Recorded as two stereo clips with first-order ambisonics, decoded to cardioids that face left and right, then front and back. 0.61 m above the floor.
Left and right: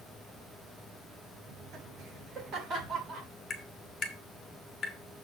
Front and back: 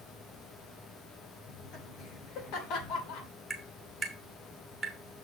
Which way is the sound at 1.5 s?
50° right.